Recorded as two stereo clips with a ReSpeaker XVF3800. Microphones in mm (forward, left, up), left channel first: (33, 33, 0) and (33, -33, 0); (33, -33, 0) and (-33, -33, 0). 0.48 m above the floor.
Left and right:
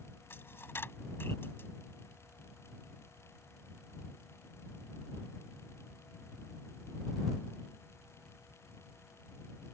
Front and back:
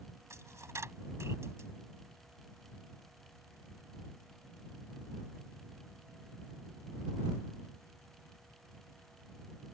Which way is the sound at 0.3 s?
140° left.